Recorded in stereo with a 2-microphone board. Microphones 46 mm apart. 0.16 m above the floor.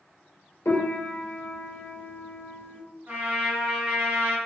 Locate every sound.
0.7 s a piano: 70° left (ahead or behind), 0.9 m
3.1 s a trumpet: 35° right (ahead or behind), 1.3 m